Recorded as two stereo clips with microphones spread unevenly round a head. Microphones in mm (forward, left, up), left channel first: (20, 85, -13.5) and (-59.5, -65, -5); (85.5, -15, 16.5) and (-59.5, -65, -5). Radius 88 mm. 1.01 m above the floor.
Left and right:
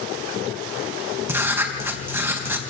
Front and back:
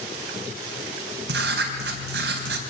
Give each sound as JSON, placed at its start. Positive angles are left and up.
{"t": 1.3, "sound": "writing", "azimuth_deg": 165, "distance_m": 3.5}